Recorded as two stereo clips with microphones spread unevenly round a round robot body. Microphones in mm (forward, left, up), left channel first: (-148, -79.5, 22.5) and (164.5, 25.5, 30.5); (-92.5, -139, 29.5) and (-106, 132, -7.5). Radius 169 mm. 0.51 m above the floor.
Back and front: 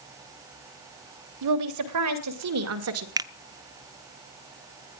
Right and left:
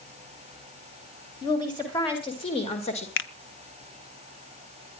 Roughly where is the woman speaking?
Ahead.